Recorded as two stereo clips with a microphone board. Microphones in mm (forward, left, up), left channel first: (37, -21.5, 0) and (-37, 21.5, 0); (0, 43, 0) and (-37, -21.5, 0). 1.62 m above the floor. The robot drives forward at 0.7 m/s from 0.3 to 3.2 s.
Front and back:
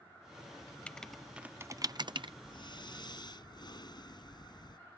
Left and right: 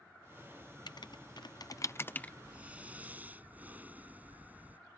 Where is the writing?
45° left; by 2.3 s 135° left.